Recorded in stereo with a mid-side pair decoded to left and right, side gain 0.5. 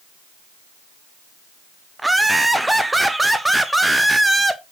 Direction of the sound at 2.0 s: 10° right.